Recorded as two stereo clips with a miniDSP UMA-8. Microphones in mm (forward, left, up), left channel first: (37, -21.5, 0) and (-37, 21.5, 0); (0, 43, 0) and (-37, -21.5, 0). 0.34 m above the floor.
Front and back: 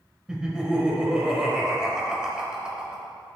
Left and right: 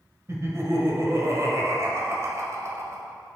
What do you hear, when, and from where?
0.3 s laughter: 135° right, 1.1 m